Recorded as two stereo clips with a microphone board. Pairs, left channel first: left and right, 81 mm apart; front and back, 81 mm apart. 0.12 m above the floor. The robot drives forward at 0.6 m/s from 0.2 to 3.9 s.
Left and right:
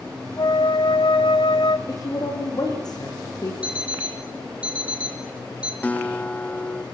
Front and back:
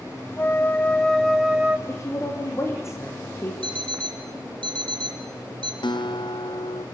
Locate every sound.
0.4 s a flute: 65° left, 1.2 m; by 1.8 s 105° left, 1.1 m
1.9 s a woman speaking: 50° left, 7 m; by 3.5 s 55° left, 6.5 m
3.6 s an alarm clock: 165° right, 3 m
5.8 s a guitar: 20° left, 1.0 m